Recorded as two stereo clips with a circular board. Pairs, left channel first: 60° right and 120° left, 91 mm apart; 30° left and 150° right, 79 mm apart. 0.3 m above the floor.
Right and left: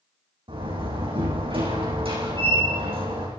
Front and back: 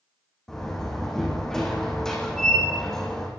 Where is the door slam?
115° left, 9 m.